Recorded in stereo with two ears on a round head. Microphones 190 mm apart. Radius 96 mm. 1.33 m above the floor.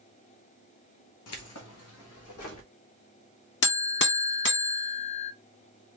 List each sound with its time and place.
1.3 s keys jangling: 75° left (ahead or behind), 1.1 m; by 2.7 s 70° left (ahead or behind), 2 m
3.6 s a buzzer: 55° left (ahead or behind), 0.6 m